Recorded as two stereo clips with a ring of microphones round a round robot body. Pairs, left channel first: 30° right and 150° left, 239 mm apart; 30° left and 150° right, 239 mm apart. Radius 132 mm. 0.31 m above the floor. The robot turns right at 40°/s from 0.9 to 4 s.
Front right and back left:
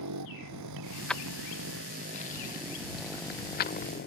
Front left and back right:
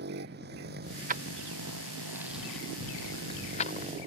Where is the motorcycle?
160° left; by 4.1 s 80° right.